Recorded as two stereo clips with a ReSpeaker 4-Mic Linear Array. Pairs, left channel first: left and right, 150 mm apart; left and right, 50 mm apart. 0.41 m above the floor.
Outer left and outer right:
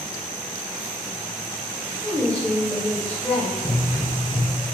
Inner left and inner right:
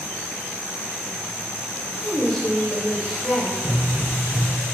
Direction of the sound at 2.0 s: 5° left (ahead or behind).